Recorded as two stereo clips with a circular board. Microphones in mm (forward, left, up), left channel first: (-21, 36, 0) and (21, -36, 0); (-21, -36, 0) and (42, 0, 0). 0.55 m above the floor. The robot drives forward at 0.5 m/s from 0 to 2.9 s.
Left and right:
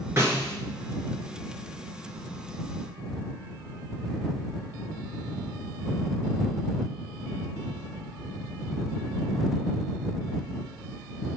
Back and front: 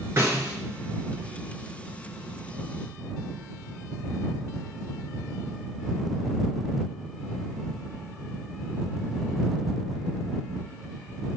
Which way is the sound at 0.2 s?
10° right.